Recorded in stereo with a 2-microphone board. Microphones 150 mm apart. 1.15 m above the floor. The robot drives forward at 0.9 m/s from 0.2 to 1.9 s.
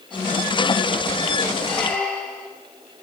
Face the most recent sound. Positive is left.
turn(degrees=5)  # may be behind; listen again after turning